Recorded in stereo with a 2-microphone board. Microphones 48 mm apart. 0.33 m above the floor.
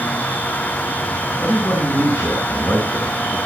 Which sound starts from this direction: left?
A man speaking, at 1.4 s.